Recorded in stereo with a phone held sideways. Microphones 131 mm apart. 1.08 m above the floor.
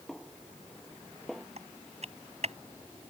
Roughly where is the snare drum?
Centre.